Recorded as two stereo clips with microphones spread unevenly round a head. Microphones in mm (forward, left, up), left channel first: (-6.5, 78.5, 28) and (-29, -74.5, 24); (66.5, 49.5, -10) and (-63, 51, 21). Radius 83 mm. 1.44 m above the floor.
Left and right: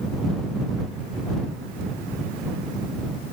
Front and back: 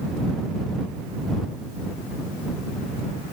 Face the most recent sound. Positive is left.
No sound to turn to.